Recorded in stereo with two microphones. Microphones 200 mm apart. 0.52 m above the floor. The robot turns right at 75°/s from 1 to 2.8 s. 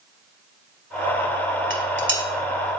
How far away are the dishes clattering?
About 1.6 m.